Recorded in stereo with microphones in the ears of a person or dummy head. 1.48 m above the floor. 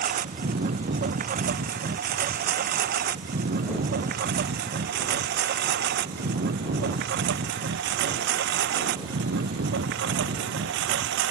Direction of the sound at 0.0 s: 45° right (ahead or behind).